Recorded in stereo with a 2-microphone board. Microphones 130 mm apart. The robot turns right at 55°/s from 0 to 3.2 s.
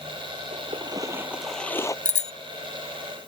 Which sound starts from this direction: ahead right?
A splash, at 0.5 s.